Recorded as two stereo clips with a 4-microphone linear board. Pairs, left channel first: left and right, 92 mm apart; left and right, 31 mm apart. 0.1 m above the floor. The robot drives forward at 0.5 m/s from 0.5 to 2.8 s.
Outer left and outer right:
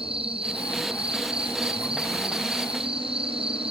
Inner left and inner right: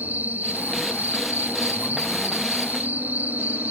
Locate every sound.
0.0 s an insect: 85° right